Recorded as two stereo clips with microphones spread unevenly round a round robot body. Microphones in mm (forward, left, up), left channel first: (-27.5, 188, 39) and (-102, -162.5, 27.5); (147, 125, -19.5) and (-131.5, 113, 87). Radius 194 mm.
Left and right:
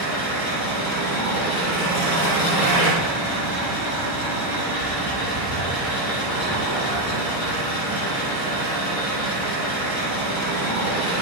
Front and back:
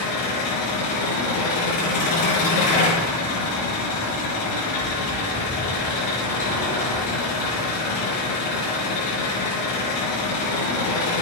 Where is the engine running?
Straight ahead, 4.5 m.